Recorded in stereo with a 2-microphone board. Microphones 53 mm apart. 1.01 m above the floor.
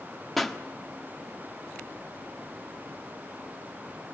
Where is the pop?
Centre (ahead or behind), 1.3 m.